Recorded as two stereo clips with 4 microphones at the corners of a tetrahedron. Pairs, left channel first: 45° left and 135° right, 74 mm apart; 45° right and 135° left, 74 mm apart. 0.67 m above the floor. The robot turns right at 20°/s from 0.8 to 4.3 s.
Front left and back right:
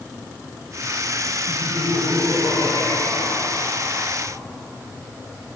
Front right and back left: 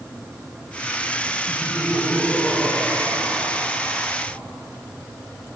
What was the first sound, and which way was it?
Laughter, 55° left.